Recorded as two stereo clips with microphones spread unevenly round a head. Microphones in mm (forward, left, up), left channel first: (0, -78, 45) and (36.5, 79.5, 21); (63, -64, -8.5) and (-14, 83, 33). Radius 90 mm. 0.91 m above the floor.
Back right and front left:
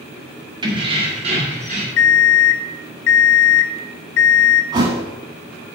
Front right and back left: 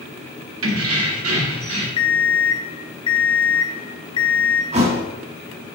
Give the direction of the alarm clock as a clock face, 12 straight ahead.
4 o'clock.